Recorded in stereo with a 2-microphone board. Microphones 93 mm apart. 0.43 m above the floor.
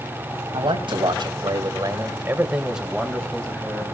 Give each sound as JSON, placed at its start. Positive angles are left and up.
{"t": 0.5, "sound": "a man speaking", "side_deg": -65, "distance_m": 3.0}